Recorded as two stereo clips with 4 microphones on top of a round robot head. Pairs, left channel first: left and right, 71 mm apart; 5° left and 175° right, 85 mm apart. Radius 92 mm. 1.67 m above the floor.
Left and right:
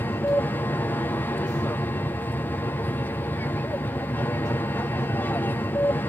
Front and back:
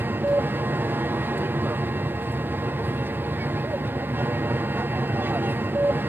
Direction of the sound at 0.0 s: 135° left.